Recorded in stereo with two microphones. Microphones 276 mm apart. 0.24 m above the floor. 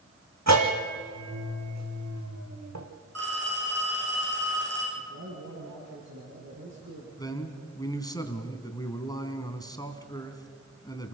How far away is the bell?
About 3 m.